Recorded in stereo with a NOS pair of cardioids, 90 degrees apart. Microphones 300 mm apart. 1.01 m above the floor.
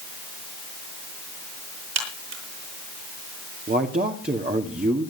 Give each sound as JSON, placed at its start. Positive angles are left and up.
{"t": 1.9, "sound": "a crack", "azimuth_deg": -60, "distance_m": 8.0}
{"t": 3.7, "sound": "a man speaking", "azimuth_deg": -30, "distance_m": 2.5}